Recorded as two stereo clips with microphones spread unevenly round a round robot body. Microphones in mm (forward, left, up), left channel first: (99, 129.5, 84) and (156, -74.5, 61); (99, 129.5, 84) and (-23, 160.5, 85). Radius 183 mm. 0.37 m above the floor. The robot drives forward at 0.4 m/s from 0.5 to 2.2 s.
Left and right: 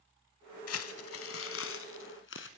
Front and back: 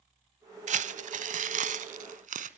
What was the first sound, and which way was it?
Crumpling, 135° left.